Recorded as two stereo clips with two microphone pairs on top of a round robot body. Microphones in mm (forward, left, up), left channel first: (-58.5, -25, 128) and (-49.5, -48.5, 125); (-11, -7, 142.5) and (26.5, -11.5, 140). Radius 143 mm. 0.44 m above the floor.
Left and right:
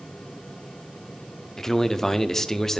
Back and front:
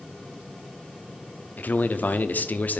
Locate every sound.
1.6 s a man speaking: 170° right, 0.9 m